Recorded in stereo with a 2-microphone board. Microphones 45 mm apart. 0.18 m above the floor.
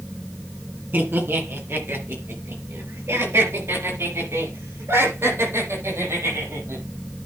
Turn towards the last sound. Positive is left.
turn(degrees=-75)  # may be behind; listen again after turning